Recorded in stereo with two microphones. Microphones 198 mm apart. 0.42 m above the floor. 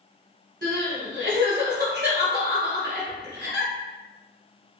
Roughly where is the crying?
Right.